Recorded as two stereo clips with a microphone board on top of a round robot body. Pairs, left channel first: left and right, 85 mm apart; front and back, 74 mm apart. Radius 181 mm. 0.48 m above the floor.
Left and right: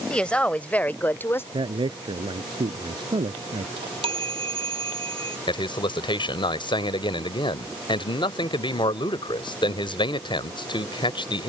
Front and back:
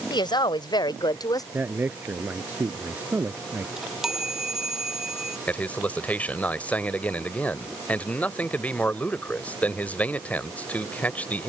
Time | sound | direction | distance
0.1 | a woman speaking | 10° left | ?
1.5 | a man speaking | 115° right | ?
3.8 | a chime | 100° right | ?
5.5 | a man speaking | 70° left | ?